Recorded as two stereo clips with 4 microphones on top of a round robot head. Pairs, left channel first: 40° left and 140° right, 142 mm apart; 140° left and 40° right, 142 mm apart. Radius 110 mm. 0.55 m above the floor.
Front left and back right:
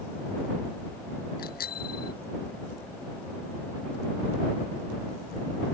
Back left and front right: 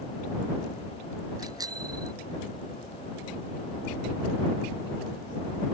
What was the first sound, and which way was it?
A bicycle bell, 25° left.